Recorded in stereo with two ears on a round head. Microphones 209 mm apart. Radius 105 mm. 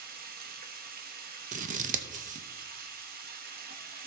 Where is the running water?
40° right (ahead or behind), 0.9 m.